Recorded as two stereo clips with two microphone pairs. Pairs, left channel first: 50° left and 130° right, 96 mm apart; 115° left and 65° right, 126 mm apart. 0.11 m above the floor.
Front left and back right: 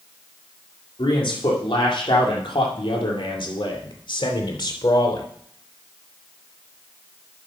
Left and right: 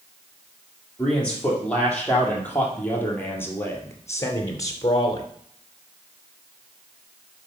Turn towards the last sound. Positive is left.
turn(degrees=70)